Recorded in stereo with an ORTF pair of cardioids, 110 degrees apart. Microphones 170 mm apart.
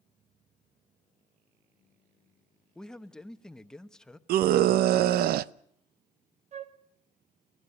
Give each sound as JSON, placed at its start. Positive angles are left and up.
{"t": 2.8, "sound": "a man speaking", "azimuth_deg": 5, "distance_m": 1.0}
{"t": 4.3, "sound": "a scream", "azimuth_deg": -70, "distance_m": 0.7}
{"t": 6.5, "sound": "a flute", "azimuth_deg": -45, "distance_m": 1.2}